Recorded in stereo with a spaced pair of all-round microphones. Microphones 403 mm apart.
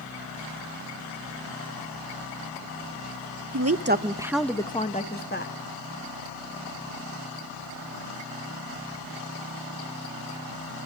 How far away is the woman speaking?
About 0.9 m.